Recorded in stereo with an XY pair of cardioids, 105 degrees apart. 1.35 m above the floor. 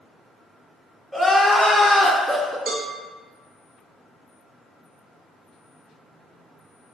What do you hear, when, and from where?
1.1 s crying: 5° right, 0.5 m
2.7 s a cowbell: 60° right, 0.6 m